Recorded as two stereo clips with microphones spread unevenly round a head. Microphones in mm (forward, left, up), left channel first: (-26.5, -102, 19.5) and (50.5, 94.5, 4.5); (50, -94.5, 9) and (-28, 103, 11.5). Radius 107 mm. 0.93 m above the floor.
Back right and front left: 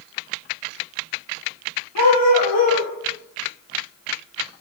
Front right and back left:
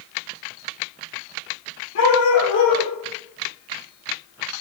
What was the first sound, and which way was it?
A dog barking, 105° right.